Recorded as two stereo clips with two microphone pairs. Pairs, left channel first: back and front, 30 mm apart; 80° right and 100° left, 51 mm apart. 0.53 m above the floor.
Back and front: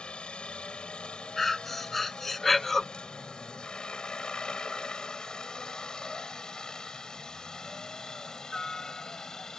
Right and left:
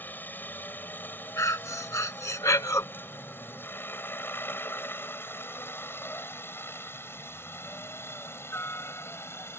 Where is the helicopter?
130° right; by 9.6 s 110° right.